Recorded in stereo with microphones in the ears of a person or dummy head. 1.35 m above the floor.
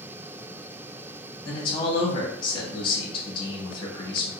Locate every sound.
1.4 s a man speaking: 30° left (ahead or behind), 1.3 m